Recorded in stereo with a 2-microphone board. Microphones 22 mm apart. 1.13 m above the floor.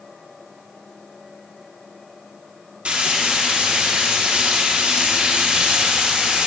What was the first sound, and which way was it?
Frying, 60° right (ahead or behind).